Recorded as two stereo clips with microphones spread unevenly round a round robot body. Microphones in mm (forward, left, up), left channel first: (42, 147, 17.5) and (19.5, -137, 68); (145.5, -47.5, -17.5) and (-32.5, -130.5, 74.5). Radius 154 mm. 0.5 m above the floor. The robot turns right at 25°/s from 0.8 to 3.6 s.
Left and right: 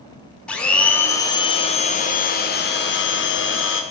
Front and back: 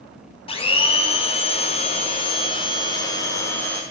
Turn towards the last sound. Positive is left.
turn(degrees=80)